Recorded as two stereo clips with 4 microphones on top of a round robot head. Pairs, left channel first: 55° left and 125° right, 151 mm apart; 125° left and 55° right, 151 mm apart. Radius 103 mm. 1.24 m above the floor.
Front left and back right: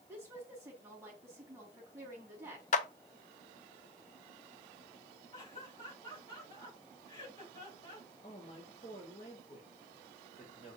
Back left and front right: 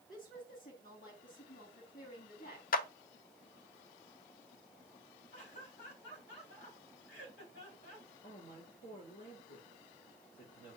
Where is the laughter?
115° left, 6 m.